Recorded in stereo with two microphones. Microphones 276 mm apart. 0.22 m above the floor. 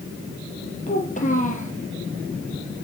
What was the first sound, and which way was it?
A child speaking, 25° left (ahead or behind).